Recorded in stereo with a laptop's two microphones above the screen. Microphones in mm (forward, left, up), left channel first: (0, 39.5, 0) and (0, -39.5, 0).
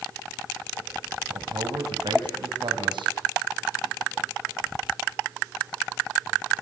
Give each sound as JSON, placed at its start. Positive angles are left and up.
{"t": 1.3, "sound": "a man speaking", "side_deg": -80, "distance_m": 5.5}